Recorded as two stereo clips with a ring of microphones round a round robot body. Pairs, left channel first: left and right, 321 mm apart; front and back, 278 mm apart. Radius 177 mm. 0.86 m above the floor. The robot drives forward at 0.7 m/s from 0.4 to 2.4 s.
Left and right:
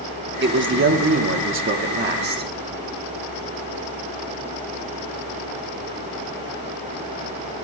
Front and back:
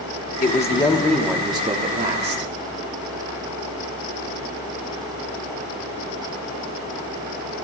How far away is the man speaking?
About 1.2 m.